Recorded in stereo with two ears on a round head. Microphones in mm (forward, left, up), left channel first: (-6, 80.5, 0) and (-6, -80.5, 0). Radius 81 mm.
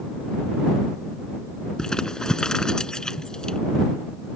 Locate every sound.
1.8 s crumpling: 5° left (ahead or behind)